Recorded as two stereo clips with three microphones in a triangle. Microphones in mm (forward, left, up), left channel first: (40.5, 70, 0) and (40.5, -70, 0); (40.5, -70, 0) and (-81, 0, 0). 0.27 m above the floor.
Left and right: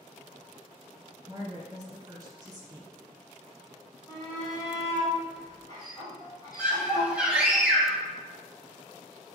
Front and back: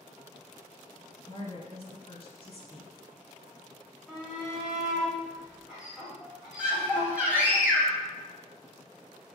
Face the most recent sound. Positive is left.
turn(degrees=-150)